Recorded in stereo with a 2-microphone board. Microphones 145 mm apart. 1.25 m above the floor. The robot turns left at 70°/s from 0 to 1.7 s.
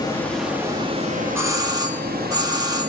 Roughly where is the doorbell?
Centre.